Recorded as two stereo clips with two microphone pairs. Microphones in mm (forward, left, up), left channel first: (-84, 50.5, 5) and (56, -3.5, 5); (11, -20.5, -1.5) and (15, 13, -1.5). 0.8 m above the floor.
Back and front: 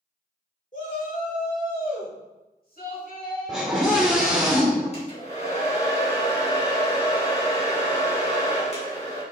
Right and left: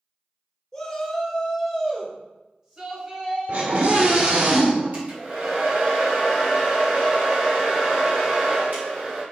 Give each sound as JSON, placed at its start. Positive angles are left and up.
{"t": 0.7, "sound": "a shout", "azimuth_deg": -175, "distance_m": 3.0}
{"t": 3.5, "sound": "a scream", "azimuth_deg": 65, "distance_m": 1.9}
{"t": 4.9, "sound": "a hair dryer", "azimuth_deg": 115, "distance_m": 4.5}